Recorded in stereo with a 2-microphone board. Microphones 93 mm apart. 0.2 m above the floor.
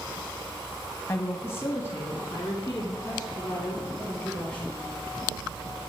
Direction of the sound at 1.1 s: 25° left (ahead or behind).